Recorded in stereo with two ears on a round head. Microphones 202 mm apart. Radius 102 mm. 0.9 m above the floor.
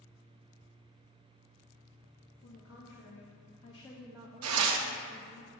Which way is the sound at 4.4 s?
75° right (ahead or behind).